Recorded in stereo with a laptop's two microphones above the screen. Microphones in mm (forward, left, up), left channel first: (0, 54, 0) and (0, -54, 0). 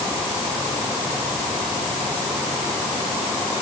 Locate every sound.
Only background noise.